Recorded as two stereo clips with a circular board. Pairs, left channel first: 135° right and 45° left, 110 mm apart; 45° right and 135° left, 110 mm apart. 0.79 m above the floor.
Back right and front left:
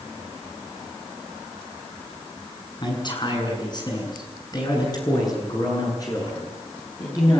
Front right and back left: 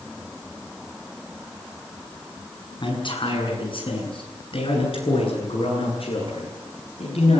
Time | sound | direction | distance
2.8 | a man speaking | 85° right | 7.5 m